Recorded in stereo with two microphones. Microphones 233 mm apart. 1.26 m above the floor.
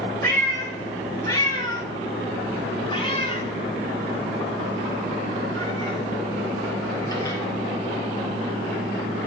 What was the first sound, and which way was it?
A cat meowing, 10° left (ahead or behind).